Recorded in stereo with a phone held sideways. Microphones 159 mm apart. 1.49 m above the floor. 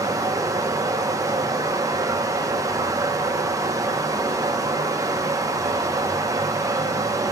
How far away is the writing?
No writing in this recording.